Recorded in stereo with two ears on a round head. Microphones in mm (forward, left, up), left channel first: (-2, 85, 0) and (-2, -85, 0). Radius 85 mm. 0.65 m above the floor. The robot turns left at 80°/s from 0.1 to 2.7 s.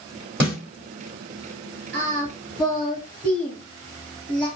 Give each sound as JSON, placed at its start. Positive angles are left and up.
{"t": 0.4, "sound": "a snare drum", "side_deg": -10, "distance_m": 2.5}
{"t": 1.9, "sound": "singing", "side_deg": -55, "distance_m": 2.5}